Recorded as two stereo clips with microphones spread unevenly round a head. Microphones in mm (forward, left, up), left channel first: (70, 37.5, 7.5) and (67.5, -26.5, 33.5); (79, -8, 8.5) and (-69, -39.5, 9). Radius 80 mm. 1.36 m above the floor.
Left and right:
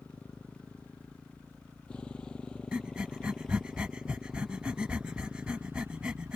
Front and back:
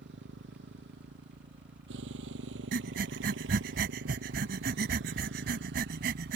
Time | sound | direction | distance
0.0 | a motorcycle | 170° left | ?
2.7 | breathing | 160° right | ?